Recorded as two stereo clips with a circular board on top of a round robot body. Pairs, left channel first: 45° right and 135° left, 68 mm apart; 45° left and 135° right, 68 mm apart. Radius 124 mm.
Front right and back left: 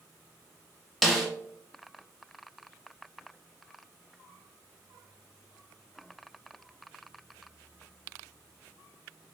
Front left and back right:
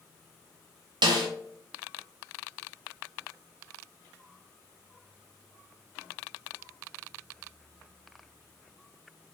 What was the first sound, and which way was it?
A snare drum, 135° right.